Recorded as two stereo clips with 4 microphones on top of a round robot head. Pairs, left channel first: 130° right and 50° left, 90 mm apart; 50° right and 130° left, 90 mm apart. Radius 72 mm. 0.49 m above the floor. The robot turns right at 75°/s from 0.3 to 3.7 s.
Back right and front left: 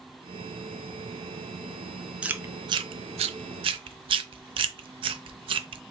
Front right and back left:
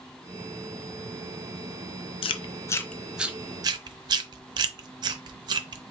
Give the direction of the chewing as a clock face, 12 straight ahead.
1 o'clock.